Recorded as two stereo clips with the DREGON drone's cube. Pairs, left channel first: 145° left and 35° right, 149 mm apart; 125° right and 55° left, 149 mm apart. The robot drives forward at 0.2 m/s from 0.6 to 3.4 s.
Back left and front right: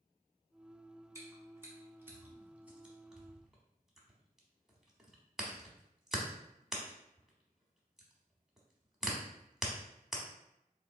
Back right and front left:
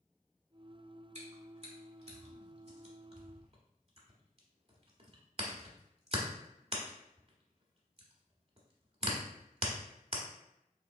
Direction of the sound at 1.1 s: 30° left.